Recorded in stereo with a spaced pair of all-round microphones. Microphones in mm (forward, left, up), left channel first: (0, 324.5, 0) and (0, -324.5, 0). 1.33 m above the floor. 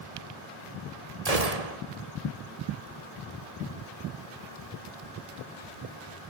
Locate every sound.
1.2 s a gunshot: 65° right (ahead or behind), 1.9 m